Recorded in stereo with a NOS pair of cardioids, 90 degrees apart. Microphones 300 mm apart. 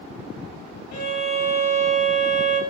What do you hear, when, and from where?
0.9 s a violin: 60° left, 0.9 m